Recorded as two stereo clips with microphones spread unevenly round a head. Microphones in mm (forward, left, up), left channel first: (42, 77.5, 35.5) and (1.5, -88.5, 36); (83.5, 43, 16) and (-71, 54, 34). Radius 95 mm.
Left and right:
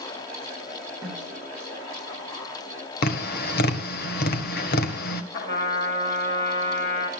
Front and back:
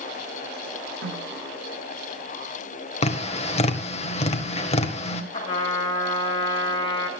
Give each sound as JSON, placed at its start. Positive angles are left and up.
{"t": 1.0, "sound": "a snare drum", "azimuth_deg": -175, "distance_m": 10.0}
{"t": 3.0, "sound": "tapping", "azimuth_deg": 45, "distance_m": 1.8}
{"t": 5.3, "sound": "a trumpet", "azimuth_deg": 55, "distance_m": 6.5}